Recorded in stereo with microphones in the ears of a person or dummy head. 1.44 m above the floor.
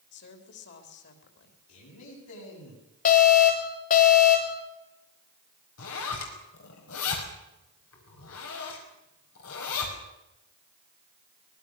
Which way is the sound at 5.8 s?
75° left (ahead or behind).